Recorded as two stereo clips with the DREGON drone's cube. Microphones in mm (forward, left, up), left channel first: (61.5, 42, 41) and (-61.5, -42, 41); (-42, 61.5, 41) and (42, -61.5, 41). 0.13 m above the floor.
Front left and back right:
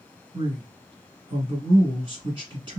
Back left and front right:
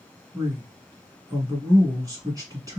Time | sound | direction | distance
0.3 | a man speaking | 110° right | 1.5 m